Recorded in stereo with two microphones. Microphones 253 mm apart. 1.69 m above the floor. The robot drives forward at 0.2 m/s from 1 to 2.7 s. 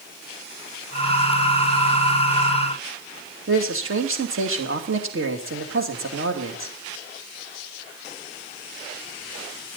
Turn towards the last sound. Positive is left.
turn(degrees=-55)  # may be behind; listen again after turning